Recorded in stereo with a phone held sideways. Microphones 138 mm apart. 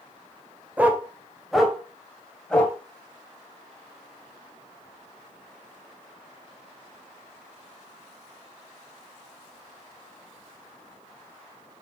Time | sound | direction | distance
0.8 | a dog barking | 10° right (ahead or behind) | 1.7 m